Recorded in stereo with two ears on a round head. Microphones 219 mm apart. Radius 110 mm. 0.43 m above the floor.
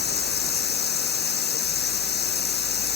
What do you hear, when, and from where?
0.0 s running water: 45° left (ahead or behind)